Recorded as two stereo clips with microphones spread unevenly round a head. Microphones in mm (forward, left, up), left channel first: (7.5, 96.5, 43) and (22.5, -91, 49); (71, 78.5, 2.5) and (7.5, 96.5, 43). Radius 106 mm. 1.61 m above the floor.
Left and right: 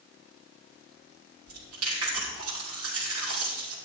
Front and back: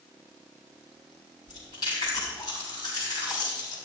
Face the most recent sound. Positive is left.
turn(degrees=-85)